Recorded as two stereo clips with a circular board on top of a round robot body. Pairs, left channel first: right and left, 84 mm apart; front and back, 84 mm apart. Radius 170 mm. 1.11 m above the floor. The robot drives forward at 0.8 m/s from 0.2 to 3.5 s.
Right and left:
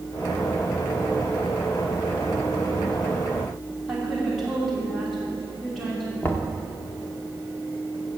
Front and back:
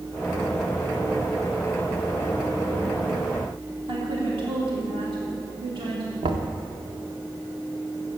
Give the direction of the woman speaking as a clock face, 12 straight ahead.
6 o'clock.